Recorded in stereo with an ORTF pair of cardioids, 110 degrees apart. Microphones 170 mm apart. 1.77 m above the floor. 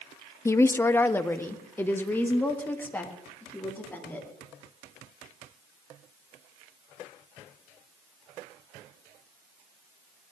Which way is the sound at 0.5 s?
15° left.